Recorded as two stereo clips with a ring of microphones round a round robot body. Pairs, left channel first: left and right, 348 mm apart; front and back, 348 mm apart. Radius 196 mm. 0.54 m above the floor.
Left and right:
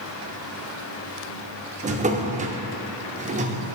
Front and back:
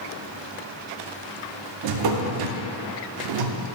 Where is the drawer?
160° right, 0.6 m.